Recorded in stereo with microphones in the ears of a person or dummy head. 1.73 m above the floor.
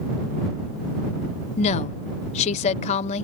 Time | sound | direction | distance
1.6 | a woman speaking | 40° left (ahead or behind) | ?